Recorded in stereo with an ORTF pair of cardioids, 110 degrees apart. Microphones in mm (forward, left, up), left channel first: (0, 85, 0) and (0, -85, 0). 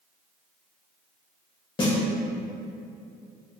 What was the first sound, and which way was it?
A snare drum, 30° left.